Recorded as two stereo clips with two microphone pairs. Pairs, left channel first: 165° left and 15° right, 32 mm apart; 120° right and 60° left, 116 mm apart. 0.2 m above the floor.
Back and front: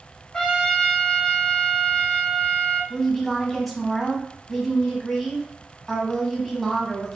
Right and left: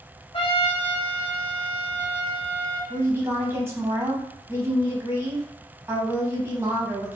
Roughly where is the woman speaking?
Left.